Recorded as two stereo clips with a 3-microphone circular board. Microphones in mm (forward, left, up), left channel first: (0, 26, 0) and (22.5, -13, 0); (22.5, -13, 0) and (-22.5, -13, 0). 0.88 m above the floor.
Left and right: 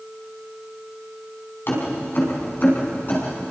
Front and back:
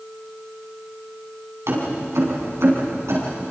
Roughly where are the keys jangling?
Behind.